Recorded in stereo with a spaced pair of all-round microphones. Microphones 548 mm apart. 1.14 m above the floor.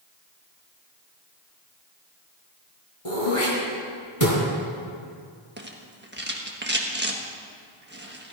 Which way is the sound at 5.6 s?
20° right (ahead or behind).